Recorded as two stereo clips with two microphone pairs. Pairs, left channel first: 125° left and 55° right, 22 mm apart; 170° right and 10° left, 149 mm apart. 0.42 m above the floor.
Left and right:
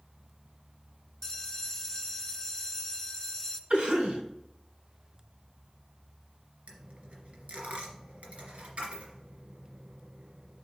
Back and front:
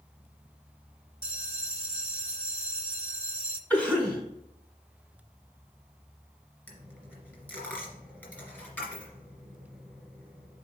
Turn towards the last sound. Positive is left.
turn(degrees=-90)